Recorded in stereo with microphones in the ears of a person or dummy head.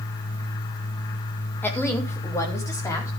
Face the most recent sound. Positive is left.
turn(degrees=20)  # may be behind; listen again after turning